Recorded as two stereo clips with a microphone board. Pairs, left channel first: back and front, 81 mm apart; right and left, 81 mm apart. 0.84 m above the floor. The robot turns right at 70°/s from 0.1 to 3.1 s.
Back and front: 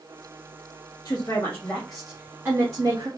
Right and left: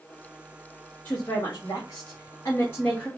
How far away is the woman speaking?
About 0.9 m.